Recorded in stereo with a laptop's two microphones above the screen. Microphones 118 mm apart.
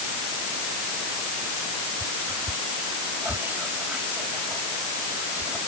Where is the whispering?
15° right (ahead or behind).